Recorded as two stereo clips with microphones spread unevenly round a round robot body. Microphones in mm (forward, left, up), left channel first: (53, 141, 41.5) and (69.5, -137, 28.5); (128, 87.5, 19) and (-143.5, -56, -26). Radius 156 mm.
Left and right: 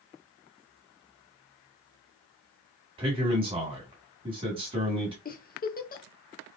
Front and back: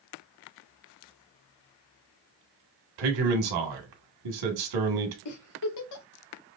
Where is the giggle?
40° left, 1.0 m.